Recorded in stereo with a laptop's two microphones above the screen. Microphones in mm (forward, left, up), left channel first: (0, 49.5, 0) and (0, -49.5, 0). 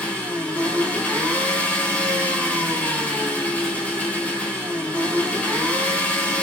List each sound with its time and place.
0.0 s an engine running: 15° left (ahead or behind), 4 m